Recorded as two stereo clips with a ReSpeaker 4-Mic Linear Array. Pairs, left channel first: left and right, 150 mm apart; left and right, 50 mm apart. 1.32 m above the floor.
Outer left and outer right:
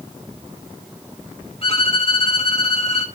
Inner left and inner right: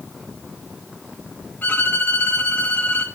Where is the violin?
40° left (ahead or behind), 2.5 m.